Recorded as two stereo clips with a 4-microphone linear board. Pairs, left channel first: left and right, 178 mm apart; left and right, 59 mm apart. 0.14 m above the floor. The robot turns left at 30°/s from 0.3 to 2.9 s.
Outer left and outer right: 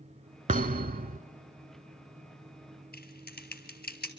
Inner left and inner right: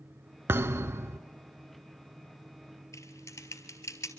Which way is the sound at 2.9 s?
65° left (ahead or behind).